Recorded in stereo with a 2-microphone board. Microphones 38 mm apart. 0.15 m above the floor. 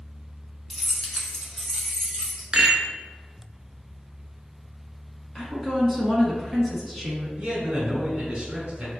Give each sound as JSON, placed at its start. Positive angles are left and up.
{"t": 0.7, "sound": "keys jangling", "side_deg": 5, "distance_m": 0.8}
{"t": 2.5, "sound": "a rattle", "side_deg": -25, "distance_m": 0.8}
{"t": 5.3, "sound": "a woman speaking", "side_deg": 0, "distance_m": 1.2}
{"t": 7.4, "sound": "a man speaking", "side_deg": -30, "distance_m": 1.7}